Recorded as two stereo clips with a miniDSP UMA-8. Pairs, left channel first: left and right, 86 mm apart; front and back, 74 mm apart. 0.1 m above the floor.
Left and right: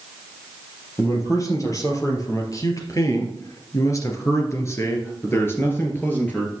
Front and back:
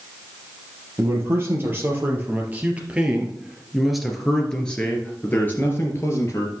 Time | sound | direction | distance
1.0 | a man speaking | 135° left | 3 m